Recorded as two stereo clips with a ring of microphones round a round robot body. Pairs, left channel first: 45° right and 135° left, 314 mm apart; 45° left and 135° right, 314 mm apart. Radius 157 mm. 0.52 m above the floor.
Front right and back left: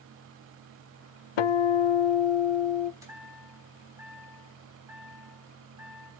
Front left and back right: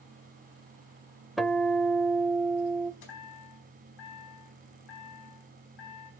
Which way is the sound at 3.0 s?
55° left.